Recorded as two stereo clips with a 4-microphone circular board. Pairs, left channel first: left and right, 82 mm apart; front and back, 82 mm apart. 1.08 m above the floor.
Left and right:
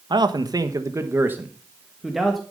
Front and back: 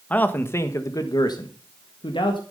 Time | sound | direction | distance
0.1 | a man speaking | 70° right | 1.2 m